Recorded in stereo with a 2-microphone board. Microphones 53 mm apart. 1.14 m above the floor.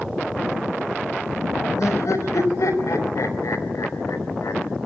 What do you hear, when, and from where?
1.8 s laughter: 75° left (ahead or behind), 4.5 m